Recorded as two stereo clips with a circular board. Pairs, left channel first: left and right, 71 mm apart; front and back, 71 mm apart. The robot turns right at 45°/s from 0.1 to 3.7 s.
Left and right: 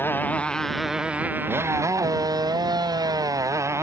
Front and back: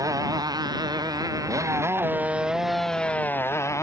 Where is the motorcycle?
150° left; by 3.8 s 45° right.